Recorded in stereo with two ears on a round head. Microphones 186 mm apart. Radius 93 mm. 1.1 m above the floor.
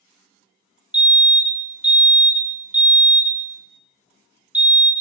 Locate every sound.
0.9 s a fire alarm: 5° right (ahead or behind), 1.6 m